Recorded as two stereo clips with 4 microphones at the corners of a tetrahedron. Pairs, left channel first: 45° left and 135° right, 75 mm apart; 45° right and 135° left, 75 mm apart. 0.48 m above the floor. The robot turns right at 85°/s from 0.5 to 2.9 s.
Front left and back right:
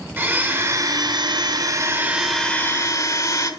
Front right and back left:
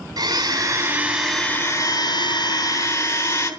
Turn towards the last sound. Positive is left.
turn(degrees=5)